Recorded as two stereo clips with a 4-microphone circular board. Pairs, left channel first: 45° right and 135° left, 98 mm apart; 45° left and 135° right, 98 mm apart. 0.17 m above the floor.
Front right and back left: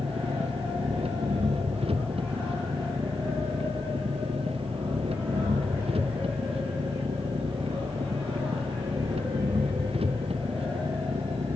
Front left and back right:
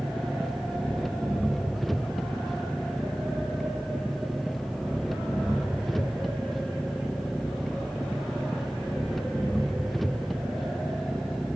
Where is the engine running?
135° left.